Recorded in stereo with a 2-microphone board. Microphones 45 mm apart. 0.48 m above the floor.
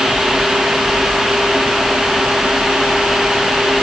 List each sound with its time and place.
Only background noise.